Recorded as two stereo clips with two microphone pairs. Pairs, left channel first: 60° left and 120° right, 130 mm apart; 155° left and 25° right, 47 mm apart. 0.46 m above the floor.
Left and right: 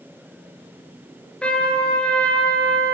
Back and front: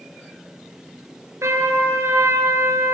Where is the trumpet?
20° right, 3.5 m.